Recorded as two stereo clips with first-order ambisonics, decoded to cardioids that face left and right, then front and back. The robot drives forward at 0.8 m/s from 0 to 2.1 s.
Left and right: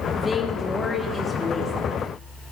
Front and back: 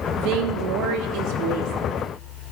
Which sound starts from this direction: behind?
A woman speaking, at 0.2 s.